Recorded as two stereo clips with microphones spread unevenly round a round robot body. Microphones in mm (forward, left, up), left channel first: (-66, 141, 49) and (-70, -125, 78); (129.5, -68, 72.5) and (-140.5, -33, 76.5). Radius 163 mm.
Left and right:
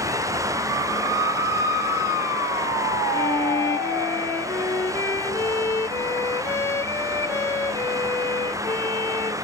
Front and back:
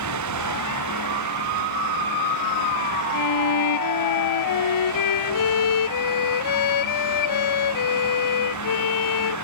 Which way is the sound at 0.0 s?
170° right.